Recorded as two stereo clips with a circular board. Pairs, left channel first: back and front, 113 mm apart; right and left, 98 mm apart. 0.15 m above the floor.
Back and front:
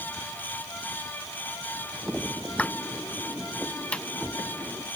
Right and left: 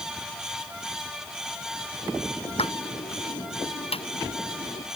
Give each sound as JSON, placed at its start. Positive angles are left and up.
{"t": 2.5, "sound": "a pop", "azimuth_deg": -100}